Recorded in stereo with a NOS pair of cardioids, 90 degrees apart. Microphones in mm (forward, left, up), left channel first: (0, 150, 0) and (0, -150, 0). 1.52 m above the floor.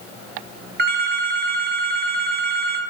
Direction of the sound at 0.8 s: 35° right.